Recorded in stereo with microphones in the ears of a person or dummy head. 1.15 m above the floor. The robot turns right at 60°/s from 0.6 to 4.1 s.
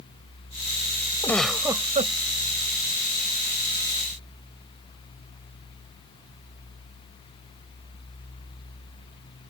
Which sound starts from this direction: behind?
A giggle, at 1.2 s.